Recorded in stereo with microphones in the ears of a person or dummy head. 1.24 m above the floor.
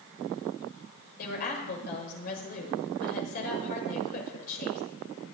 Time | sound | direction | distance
1.2 | a woman speaking | 50° left (ahead or behind) | 6 m